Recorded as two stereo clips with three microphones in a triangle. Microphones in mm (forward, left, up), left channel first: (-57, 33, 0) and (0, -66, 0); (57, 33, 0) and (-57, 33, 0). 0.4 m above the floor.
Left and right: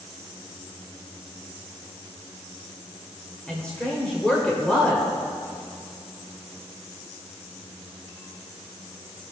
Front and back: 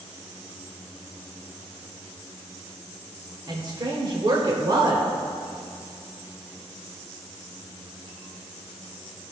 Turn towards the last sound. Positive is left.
turn(degrees=-165)